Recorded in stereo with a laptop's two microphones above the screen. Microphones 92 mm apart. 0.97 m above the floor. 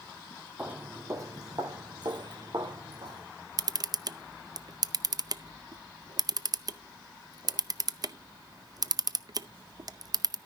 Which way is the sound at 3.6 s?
50° right (ahead or behind).